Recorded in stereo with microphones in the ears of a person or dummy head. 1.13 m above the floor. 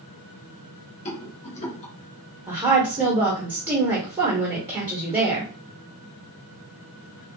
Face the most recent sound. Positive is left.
turn(degrees=-20)  # may be behind; listen again after turning